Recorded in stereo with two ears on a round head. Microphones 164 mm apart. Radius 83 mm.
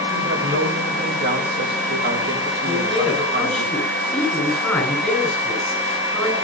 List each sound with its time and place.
0.1 s a woman speaking: 65° right (ahead or behind), 5.5 m
2.6 s a man speaking: centre (ahead or behind), 9 m